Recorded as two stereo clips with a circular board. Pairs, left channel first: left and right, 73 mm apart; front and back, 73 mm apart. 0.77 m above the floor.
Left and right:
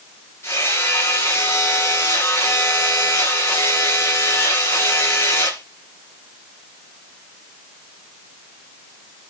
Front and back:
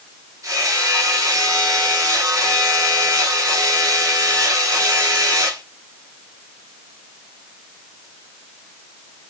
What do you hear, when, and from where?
0.4 s hammering: 135° left, 7.5 m